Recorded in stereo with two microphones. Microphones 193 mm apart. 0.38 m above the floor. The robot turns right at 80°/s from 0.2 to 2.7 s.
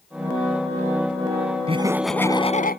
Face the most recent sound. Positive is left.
turn(degrees=50)